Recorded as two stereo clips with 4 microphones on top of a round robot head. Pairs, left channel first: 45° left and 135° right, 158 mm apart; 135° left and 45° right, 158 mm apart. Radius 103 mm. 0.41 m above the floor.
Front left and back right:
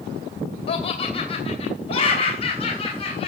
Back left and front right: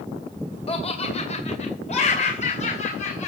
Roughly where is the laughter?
Left.